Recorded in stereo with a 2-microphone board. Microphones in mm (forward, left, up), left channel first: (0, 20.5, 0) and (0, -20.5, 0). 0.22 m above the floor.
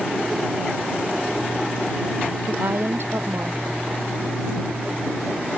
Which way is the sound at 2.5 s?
65° right (ahead or behind).